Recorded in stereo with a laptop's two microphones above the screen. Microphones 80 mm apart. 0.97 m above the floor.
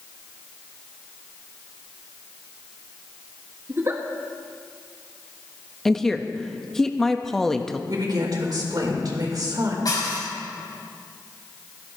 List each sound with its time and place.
3.7 s a giggle: 35° right (ahead or behind), 1.8 m
5.8 s a woman speaking: 5° left (ahead or behind), 1.1 m
7.9 s a woman speaking: 60° right (ahead or behind), 4 m
9.8 s dishes clattering: 55° left (ahead or behind), 4.5 m